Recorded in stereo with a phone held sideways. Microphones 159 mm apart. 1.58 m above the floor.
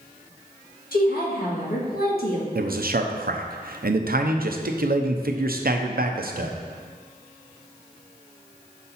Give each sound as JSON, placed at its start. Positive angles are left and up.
{"t": 0.9, "sound": "a woman speaking", "side_deg": 70, "distance_m": 1.7}
{"t": 2.5, "sound": "a man speaking", "side_deg": -70, "distance_m": 0.7}